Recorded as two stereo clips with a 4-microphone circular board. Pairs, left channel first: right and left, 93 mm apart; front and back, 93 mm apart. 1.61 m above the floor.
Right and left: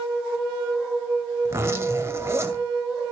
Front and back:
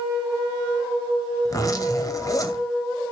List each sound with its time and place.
1.4 s a zipper: 35° left, 2 m